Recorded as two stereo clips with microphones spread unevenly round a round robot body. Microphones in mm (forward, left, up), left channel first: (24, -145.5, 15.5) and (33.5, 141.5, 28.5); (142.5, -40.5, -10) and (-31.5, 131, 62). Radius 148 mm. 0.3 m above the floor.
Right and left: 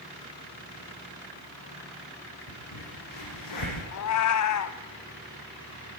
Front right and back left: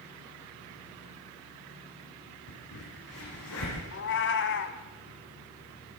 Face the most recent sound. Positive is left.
turn(degrees=-70)